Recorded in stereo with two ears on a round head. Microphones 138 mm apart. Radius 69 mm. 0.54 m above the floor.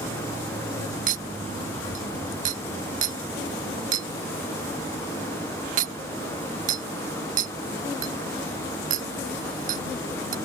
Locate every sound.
1.1 s a clink: 55° right (ahead or behind)